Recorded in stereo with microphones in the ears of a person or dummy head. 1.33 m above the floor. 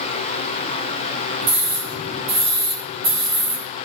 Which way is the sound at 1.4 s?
50° right (ahead or behind).